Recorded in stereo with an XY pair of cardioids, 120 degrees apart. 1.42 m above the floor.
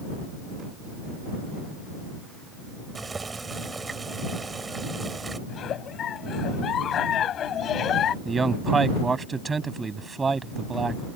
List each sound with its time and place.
3.0 s boiling: 20° right
5.5 s a giggle: 50° left
8.2 s a man speaking: 25° right